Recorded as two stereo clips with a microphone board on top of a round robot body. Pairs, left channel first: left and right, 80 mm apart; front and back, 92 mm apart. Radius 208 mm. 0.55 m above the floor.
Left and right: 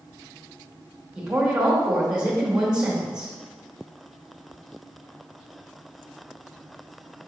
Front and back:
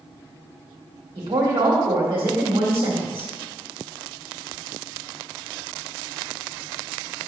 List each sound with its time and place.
1.1 s a woman speaking: 170° right, 1.9 m